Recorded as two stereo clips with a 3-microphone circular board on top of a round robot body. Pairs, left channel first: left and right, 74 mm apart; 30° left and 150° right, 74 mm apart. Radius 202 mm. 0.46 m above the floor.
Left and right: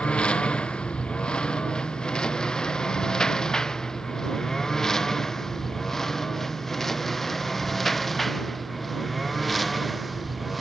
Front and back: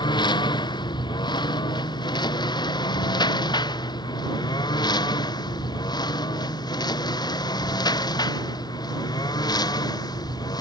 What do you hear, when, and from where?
0.0 s a lawn mower: 15° left; by 10.6 s straight ahead